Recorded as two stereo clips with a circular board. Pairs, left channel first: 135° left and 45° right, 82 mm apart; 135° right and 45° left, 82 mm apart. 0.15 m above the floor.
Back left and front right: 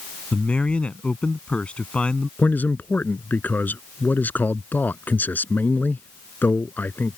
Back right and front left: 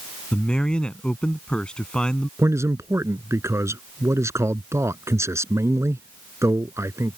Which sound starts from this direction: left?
A man speaking, at 2.4 s.